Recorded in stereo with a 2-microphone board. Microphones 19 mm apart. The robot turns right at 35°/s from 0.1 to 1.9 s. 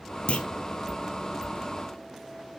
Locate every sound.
0.3 s a clunk: 80° left, 0.8 m; by 0.5 s 85° left, 0.8 m